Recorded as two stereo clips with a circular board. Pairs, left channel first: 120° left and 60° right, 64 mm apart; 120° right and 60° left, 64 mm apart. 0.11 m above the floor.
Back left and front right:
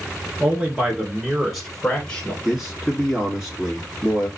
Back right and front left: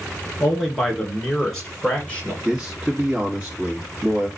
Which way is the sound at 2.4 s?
20° left.